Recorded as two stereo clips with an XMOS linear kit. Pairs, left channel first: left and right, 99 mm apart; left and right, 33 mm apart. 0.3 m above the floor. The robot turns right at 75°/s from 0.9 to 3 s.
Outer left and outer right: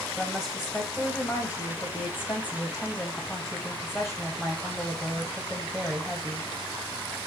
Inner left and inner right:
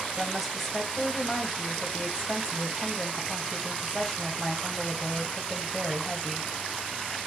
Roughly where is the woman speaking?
Centre.